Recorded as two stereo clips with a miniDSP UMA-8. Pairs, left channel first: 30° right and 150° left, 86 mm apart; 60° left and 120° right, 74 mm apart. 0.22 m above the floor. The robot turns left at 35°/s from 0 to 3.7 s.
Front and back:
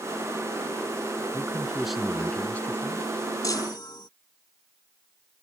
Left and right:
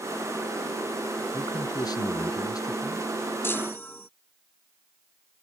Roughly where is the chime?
Ahead.